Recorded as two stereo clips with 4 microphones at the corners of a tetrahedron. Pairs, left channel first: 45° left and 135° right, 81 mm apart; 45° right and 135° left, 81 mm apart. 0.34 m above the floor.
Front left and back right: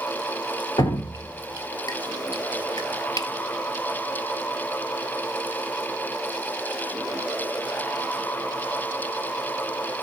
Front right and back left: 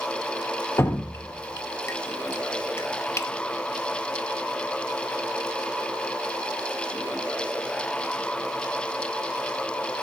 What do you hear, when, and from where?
0.8 s dripping: 10° left, 1.6 m